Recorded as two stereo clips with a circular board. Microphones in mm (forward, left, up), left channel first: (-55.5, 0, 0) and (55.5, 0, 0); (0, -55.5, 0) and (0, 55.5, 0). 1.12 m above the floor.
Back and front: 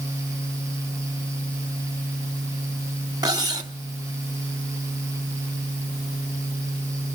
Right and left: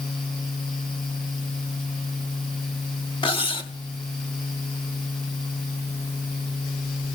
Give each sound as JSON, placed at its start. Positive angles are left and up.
{"t": 3.2, "sound": "cutlery clinking", "azimuth_deg": -55, "distance_m": 1.1}